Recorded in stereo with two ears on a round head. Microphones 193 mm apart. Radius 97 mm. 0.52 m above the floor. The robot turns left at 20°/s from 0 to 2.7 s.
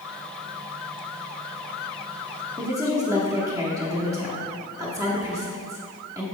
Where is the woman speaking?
15° right (ahead or behind), 0.9 m.